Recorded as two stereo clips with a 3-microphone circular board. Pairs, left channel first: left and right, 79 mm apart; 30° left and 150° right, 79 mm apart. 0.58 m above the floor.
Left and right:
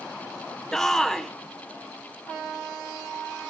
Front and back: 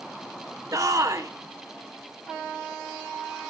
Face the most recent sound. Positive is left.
turn(degrees=175)